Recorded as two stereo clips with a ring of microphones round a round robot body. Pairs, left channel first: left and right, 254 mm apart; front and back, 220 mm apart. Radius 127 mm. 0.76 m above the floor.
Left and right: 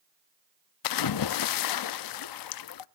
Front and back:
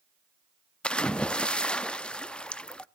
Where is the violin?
I don't hear a violin.